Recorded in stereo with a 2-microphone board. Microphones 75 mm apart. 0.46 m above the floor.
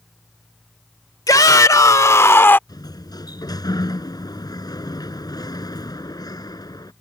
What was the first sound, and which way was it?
A shout, 55° left (ahead or behind).